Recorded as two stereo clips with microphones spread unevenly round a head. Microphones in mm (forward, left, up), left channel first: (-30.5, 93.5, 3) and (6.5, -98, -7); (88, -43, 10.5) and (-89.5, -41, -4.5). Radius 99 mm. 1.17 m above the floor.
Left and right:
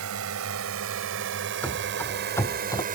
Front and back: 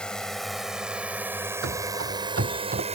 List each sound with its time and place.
0.0 s a drone: 85° right; by 3.0 s 130° right
1.6 s running footsteps: straight behind; by 2.9 s 155° left